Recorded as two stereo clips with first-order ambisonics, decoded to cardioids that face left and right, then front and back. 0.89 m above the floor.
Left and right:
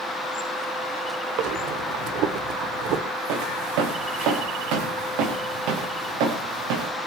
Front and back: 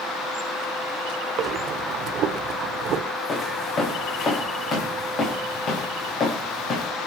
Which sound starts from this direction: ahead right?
Footsteps, at 3.3 s.